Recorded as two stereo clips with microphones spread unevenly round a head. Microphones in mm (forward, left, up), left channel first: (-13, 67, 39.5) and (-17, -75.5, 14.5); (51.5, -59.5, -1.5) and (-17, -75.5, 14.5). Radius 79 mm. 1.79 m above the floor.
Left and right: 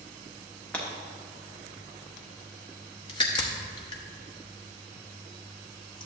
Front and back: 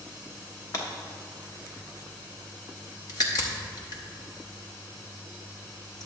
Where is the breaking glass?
30° left, 1.1 m.